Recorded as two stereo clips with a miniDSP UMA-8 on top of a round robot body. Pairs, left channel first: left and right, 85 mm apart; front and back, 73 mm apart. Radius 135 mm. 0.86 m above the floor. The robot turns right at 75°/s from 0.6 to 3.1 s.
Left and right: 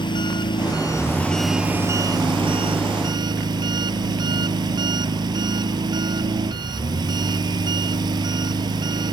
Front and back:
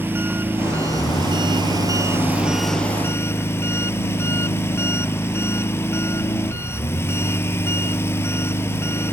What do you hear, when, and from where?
0.0 s an engine running: 120° left; by 9.1 s 55° right